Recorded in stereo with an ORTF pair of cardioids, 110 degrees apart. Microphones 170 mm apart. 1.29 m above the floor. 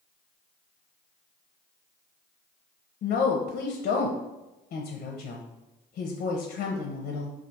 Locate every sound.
3.0 s a woman speaking: 50° left, 0.5 m